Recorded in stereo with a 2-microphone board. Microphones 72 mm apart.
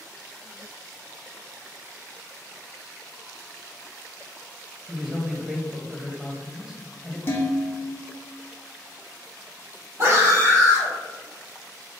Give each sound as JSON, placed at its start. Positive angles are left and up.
{"t": 4.9, "sound": "a man speaking", "side_deg": -5, "distance_m": 0.9}
{"t": 7.3, "sound": "dishes clattering", "side_deg": 35, "distance_m": 0.8}
{"t": 10.0, "sound": "a scream", "side_deg": -45, "distance_m": 2.0}